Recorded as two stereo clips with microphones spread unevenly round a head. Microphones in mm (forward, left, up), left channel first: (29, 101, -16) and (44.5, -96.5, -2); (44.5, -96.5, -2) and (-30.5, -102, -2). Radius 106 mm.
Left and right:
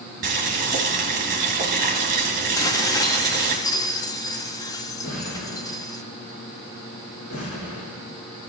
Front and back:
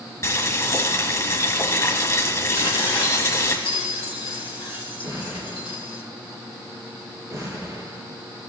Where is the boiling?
40° right, 4 m.